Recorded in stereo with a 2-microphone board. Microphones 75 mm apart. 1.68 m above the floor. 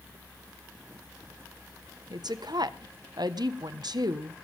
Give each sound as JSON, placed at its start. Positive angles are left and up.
{"t": 2.1, "sound": "a woman speaking", "side_deg": -75, "distance_m": 1.3}